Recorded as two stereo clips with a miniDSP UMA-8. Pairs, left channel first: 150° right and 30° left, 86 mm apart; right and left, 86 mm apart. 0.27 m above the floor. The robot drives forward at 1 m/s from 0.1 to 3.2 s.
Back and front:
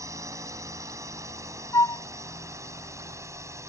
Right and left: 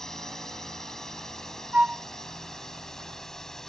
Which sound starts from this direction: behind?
A flute, at 1.7 s.